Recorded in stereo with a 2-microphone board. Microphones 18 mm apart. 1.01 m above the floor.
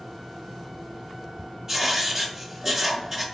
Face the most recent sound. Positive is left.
turn(degrees=-25)  # may be behind; listen again after turning